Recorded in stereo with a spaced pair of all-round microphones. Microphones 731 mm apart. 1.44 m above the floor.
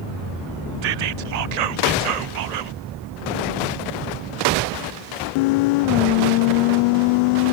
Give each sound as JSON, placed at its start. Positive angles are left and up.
{"t": 0.8, "sound": "whispering", "side_deg": -65, "distance_m": 0.5}